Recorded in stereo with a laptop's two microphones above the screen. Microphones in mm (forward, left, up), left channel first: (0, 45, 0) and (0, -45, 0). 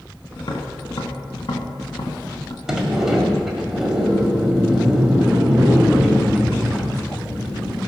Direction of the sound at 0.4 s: 60° left (ahead or behind).